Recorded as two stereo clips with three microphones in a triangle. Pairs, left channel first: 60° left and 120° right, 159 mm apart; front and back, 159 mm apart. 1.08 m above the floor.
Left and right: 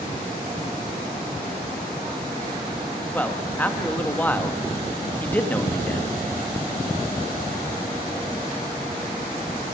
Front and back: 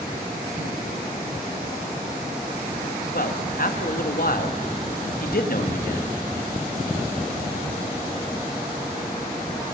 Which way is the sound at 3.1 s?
20° right.